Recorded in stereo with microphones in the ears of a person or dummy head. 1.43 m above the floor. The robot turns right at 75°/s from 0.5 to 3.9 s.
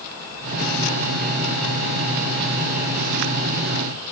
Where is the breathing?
No breathing in this recording.